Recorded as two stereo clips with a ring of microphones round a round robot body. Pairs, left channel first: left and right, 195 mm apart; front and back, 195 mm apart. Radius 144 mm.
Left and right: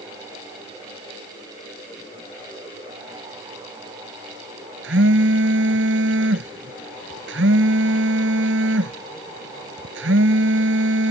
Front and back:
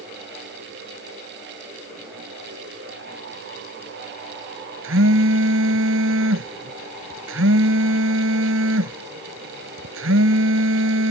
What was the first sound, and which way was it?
A phone buzzing, 140° right.